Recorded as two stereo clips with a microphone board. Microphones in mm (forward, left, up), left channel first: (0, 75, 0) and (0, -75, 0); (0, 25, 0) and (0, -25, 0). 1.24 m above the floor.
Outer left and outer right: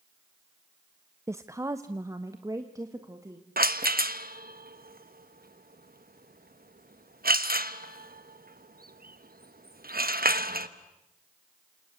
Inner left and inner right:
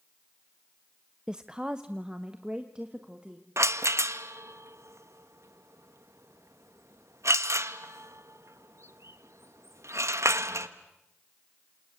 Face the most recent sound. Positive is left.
turn(degrees=-80)